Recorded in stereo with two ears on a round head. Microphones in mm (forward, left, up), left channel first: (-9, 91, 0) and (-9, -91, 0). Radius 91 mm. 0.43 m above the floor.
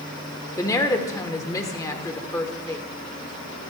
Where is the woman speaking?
15° left (ahead or behind), 1.2 m.